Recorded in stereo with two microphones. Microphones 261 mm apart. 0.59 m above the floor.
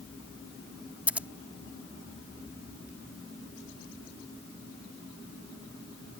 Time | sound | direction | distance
1.1 | scissors | 5° right (ahead or behind) | ?